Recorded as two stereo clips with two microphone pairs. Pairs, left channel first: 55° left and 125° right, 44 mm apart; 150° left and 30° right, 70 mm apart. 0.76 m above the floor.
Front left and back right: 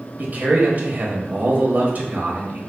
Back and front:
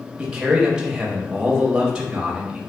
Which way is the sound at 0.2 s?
100° right.